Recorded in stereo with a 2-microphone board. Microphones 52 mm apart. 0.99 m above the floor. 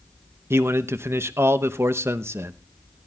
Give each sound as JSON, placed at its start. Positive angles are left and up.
{"t": 0.5, "sound": "a man speaking", "side_deg": -55, "distance_m": 0.8}